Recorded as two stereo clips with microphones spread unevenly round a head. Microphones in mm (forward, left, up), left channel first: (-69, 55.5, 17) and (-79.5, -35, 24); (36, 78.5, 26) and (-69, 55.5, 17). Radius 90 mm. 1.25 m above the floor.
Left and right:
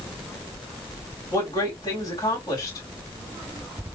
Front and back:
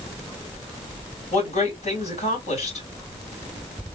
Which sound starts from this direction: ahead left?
A woman speaking, at 1.3 s.